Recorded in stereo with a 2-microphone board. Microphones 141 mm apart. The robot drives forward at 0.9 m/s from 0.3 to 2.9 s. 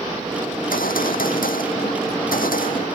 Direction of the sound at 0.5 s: 85° left.